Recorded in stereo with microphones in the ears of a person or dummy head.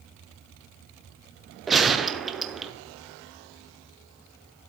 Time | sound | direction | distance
1.7 | a gunshot | centre (ahead or behind) | 0.6 m